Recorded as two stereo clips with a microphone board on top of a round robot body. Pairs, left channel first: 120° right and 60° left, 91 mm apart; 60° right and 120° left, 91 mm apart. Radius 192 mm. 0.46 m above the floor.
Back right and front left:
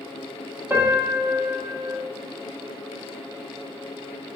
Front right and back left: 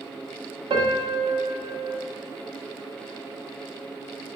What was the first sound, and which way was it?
A piano, 125° left.